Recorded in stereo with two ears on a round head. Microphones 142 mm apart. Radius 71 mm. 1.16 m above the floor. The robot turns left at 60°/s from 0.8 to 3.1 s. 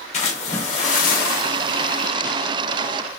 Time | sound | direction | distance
0.1 | a splash | 135° left | 0.8 m